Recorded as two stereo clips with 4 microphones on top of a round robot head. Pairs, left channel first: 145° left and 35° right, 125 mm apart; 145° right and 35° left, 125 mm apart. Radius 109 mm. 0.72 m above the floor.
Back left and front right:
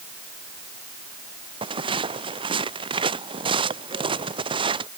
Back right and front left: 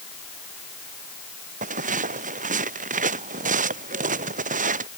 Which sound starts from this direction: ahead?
Footsteps, at 1.6 s.